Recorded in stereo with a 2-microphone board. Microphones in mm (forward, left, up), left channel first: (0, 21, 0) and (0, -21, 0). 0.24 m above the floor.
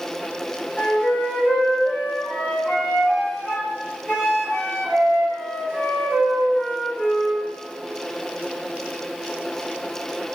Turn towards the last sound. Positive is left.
turn(degrees=25)  # may be behind; listen again after turning